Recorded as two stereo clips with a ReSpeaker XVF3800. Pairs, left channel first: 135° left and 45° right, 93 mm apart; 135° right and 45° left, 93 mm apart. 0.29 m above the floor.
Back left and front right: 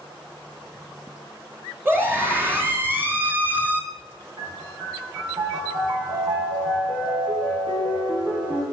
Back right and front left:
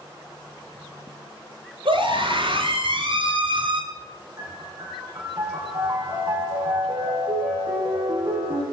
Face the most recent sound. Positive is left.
turn(degrees=-10)